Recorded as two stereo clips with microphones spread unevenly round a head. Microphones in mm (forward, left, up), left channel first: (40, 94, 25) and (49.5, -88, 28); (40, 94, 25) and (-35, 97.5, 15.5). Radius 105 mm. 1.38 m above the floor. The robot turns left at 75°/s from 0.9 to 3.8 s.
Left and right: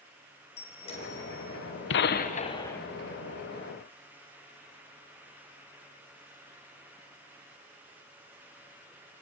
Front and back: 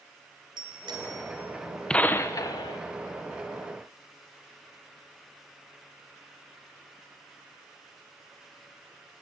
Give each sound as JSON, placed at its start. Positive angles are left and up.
{"t": 0.6, "sound": "a bicycle bell", "azimuth_deg": 155, "distance_m": 4.0}
{"t": 1.9, "sound": "a gunshot", "azimuth_deg": 75, "distance_m": 1.2}